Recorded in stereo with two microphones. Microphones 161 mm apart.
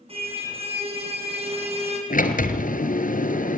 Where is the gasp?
No gasp in this recording.